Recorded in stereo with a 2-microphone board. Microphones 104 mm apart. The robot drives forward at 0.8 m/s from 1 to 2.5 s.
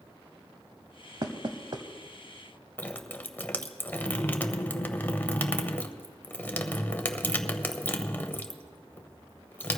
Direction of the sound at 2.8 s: 15° left (ahead or behind).